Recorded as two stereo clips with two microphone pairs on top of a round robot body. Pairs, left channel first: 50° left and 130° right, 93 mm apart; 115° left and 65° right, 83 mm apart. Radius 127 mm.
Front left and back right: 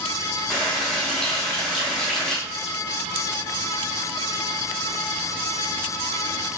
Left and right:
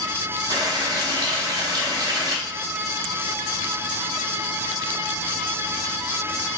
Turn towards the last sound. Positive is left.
turn(degrees=-30)